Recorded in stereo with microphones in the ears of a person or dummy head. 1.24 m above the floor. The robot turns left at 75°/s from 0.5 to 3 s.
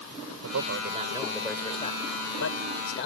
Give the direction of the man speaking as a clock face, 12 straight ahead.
4 o'clock.